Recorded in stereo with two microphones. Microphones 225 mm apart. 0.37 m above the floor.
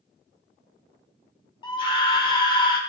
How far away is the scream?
About 0.8 m.